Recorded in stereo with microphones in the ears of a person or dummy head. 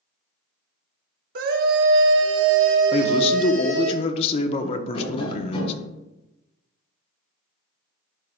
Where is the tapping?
35° left (ahead or behind), 4 m.